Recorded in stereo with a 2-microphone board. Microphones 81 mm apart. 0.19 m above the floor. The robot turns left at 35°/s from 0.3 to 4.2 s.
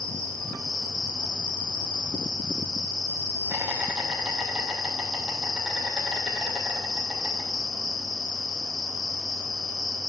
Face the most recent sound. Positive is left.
turn(degrees=180)